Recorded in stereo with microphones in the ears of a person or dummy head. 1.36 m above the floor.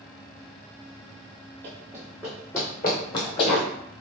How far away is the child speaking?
No child speaking in this recording.